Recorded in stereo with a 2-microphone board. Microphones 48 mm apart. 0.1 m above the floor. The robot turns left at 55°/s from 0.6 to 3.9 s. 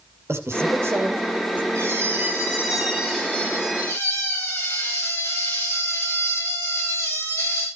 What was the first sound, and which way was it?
A man speaking, 90° right.